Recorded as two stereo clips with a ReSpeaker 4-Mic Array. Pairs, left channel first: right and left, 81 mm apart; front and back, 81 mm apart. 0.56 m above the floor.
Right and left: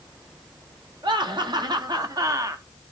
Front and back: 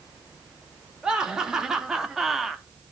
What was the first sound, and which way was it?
Laughter, 100° left.